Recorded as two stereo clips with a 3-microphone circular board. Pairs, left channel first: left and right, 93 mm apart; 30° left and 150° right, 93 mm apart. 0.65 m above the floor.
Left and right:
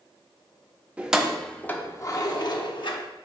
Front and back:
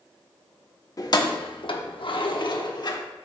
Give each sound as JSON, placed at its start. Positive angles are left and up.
{"t": 1.0, "sound": "keys jangling", "azimuth_deg": -15, "distance_m": 0.7}